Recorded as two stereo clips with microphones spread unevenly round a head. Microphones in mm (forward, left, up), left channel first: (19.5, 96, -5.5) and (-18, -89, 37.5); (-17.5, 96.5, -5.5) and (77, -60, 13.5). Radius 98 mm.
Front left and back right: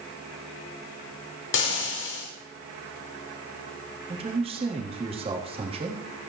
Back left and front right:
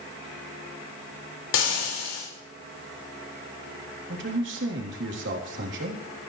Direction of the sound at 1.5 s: 105° left.